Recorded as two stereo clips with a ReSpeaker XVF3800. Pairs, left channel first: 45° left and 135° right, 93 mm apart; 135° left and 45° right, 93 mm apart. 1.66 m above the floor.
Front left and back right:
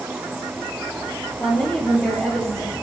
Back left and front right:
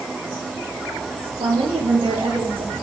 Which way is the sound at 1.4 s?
25° right.